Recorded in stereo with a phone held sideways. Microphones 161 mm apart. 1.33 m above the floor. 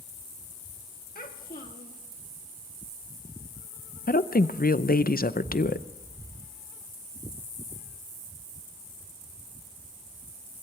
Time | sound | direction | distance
1.1 | a child speaking | 65° left (ahead or behind) | 1.3 m
4.1 | a woman speaking | 65° left (ahead or behind) | 0.6 m